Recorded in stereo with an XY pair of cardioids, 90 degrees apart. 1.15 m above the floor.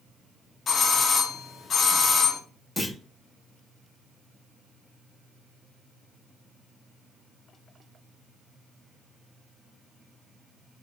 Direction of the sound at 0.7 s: 55° left.